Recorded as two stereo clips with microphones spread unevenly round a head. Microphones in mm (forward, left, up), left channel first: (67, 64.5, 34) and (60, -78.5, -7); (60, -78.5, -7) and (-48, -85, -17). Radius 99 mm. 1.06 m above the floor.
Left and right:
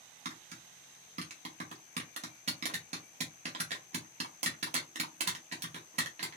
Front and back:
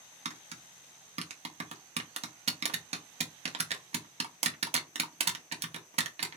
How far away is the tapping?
About 0.9 m.